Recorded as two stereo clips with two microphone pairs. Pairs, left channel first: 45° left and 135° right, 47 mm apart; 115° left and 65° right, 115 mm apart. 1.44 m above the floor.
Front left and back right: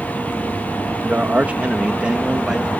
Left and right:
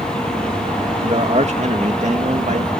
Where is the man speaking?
85° right; by 2.7 s 55° right.